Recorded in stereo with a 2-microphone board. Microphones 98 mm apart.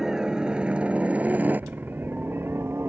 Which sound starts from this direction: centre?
A helicopter, at 0.0 s.